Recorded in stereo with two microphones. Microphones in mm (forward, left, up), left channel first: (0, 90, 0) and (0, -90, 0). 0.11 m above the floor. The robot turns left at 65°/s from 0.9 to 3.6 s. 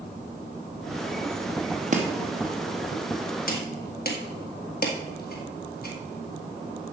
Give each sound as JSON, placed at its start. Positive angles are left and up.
{"t": 1.9, "sound": "chopping", "side_deg": -45, "distance_m": 1.7}